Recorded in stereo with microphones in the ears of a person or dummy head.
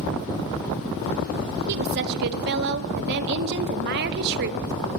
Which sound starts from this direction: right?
A woman speaking, at 1.7 s.